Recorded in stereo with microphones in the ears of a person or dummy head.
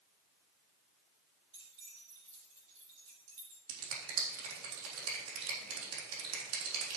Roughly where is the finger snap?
Right.